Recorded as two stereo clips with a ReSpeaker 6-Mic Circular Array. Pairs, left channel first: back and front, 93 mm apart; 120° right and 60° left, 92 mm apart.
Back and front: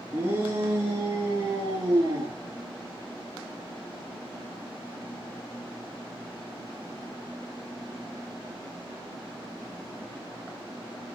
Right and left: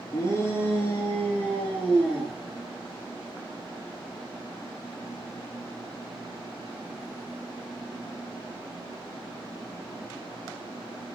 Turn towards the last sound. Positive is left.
turn(degrees=-30)